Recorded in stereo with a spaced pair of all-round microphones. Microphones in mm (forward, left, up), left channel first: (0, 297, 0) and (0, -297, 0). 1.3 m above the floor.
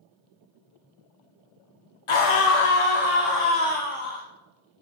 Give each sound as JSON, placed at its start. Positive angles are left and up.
{"t": 2.1, "sound": "a scream", "side_deg": 55, "distance_m": 0.7}